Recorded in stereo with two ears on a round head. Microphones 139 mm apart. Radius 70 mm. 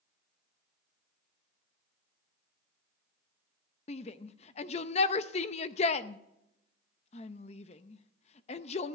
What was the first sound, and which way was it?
A shout, 40° left (ahead or behind).